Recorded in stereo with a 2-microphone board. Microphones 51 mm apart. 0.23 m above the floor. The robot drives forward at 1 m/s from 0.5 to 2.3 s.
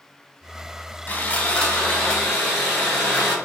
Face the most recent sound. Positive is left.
turn(degrees=15)  # may be behind; listen again after turning